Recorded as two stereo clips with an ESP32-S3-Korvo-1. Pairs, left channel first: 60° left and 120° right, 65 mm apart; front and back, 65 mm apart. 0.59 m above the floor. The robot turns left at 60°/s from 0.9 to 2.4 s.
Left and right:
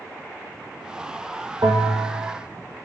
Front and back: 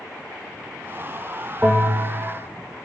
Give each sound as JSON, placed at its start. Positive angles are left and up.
{"t": 1.6, "sound": "a bell", "azimuth_deg": -120, "distance_m": 0.5}